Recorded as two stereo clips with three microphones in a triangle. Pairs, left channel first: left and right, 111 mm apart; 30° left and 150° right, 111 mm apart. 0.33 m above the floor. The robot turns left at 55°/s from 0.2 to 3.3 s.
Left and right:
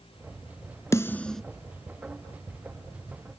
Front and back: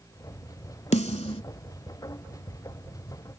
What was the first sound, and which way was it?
A snare drum, 30° left.